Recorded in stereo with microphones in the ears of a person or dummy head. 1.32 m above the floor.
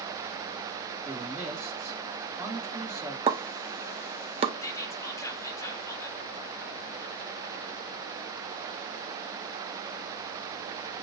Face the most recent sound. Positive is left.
turn(degrees=15)  # may be behind; listen again after turning